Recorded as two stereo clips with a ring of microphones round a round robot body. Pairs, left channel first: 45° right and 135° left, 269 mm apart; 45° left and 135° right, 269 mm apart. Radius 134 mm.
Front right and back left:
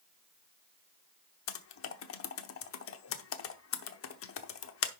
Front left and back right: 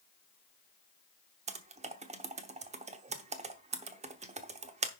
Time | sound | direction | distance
1.5 | typing on a keyboard | 75° right | 0.9 m